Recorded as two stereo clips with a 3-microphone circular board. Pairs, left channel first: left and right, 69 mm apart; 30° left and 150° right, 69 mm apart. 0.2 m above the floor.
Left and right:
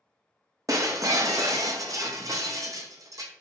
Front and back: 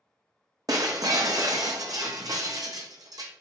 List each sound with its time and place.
0.7 s breaking glass: 125° right, 0.5 m